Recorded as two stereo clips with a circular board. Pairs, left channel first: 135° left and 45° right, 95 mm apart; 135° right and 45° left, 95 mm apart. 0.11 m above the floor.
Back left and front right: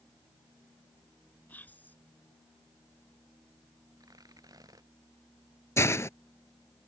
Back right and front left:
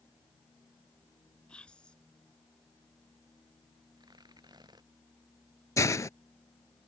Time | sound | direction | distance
1.5 | whispering | 165° left | ?
4.0 | tearing paper | 5° left | ?
5.8 | a hiss | 175° right | ?